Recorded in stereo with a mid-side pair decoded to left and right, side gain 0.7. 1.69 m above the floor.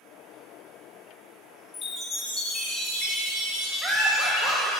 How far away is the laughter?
About 1.0 m.